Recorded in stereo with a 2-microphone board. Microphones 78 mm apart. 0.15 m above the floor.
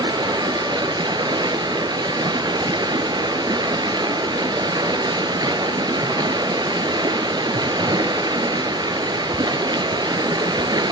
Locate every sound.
0.0 s running water: 60° right (ahead or behind), 0.7 m